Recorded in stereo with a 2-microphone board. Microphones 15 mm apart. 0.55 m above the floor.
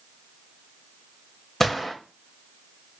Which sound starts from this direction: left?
A gunshot, at 1.6 s.